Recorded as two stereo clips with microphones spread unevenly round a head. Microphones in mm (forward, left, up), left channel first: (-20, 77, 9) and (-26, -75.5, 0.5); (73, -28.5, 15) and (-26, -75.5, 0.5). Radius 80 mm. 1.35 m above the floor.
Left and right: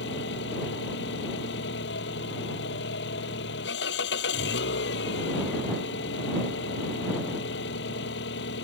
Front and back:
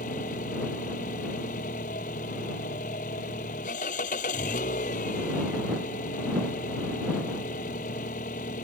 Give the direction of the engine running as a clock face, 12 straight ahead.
10 o'clock.